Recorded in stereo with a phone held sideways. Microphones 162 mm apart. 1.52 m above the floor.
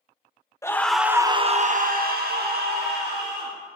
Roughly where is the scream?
Centre.